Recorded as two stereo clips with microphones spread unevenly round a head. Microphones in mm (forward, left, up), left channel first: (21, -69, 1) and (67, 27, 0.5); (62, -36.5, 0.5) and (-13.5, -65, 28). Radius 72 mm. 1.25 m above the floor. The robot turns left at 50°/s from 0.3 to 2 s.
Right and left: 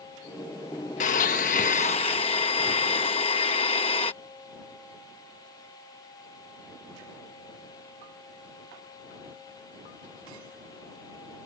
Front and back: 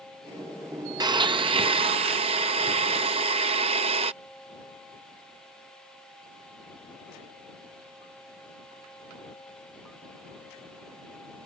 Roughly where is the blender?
Behind right.